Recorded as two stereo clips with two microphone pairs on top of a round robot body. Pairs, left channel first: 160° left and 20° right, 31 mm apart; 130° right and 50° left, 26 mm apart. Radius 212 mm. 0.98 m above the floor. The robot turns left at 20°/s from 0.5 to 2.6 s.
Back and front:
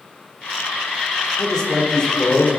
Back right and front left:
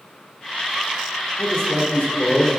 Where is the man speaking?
130° right, 3 m; by 2.5 s 150° right, 3 m.